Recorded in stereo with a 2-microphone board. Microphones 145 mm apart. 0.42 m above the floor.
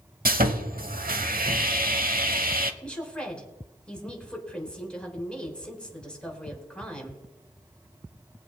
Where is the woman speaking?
5° left (ahead or behind), 3.5 m.